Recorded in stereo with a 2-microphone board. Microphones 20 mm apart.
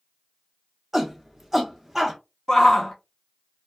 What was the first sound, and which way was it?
A shout, 20° right (ahead or behind).